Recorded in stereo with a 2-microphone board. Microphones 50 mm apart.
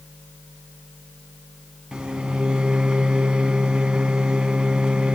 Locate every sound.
1.9 s a microwave: 20° right (ahead or behind), 0.9 m